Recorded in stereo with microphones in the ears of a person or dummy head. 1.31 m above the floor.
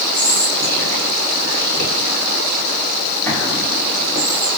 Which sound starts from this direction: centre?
Whispering, at 0.1 s.